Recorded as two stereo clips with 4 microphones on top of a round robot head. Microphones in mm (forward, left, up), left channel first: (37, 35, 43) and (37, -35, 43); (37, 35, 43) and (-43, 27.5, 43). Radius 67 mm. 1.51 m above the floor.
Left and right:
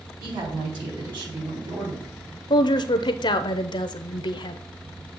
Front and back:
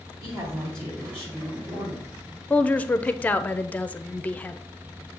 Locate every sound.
0.2 s a woman speaking: 75° right, 4 m
2.5 s a woman speaking: 80° left, 0.6 m